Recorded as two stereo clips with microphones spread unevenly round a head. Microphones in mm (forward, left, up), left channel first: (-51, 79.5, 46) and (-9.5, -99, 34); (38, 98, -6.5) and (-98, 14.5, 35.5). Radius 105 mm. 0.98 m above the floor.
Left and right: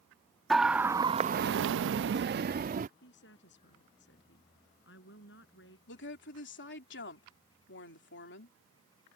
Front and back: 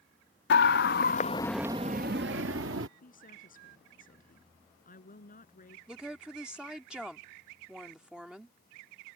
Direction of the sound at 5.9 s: 125° left.